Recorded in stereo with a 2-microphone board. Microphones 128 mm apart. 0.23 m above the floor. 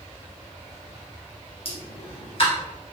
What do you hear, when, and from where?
1.6 s a pop: 45° left (ahead or behind), 1.3 m